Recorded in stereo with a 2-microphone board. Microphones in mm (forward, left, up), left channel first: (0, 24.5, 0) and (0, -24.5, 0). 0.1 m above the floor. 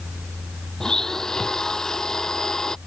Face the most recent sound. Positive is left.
turn(degrees=10)  # may be behind; listen again after turning